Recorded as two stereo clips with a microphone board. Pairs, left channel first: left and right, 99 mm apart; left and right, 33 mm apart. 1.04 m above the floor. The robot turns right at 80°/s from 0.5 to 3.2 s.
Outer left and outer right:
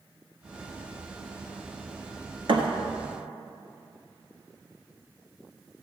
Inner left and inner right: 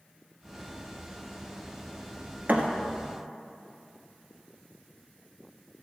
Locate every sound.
2.5 s a thud: 55° right (ahead or behind), 1.7 m; by 2.7 s 60° right (ahead or behind), 1.7 m